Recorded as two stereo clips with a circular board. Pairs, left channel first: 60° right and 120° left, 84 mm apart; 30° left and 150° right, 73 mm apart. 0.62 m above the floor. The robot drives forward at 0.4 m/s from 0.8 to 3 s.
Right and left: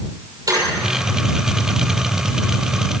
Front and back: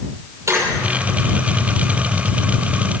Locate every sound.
0.5 s a squeak: 160° left, 6 m